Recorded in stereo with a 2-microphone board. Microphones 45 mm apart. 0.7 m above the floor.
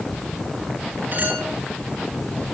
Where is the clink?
45° right (ahead or behind), 7.5 m.